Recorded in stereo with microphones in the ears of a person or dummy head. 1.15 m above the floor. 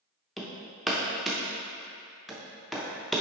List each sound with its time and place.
0.4 s hammering: centre (ahead or behind), 0.7 m